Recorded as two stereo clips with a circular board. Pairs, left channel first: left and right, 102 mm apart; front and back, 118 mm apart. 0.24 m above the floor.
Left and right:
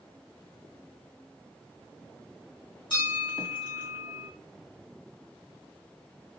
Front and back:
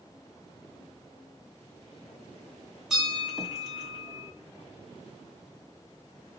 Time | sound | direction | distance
2.9 | a bell | 95° left | 2 m